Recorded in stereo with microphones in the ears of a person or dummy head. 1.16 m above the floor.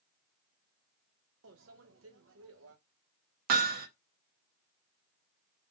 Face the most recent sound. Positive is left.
turn(degrees=-55)  # may be behind; listen again after turning